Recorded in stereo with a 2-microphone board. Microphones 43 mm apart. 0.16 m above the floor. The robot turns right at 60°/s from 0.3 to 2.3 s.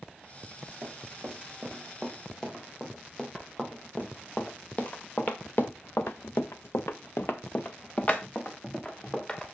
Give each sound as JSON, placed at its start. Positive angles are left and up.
{"t": 0.8, "sound": "running footsteps", "side_deg": -80, "distance_m": 4.0}